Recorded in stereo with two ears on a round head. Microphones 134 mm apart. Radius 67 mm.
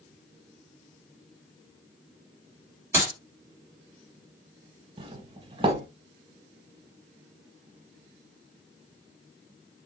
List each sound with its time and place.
2.9 s a clap: 15° right (ahead or behind), 3 m
5.0 s a doorbell: 35° right (ahead or behind), 0.7 m